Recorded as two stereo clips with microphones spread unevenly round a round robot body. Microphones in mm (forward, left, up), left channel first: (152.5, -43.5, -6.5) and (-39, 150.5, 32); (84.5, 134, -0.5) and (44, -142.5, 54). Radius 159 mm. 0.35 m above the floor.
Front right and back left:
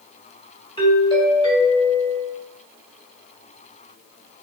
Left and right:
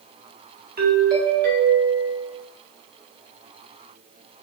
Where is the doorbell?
65° right, 1.3 m.